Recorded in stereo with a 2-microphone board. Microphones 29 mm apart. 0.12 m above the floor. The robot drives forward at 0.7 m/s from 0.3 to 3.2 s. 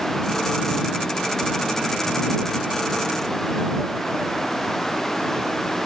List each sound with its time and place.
Only background noise.